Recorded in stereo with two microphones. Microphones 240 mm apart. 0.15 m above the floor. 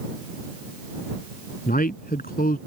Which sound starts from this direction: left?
A man speaking, at 1.7 s.